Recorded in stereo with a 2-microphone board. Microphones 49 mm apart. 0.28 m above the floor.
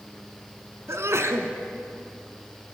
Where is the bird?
No bird in this recording.